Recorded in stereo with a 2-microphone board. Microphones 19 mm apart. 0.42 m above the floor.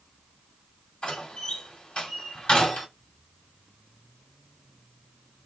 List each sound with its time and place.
1.0 s a door slam: 65° left (ahead or behind), 2.0 m